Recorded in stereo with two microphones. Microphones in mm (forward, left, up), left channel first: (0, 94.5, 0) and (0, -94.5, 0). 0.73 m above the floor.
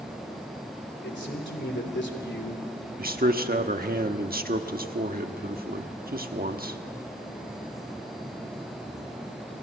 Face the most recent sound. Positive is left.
turn(degrees=-50)  # may be behind; listen again after turning